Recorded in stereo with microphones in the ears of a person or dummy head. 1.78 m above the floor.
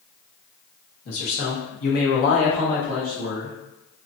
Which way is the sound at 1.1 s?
65° left (ahead or behind).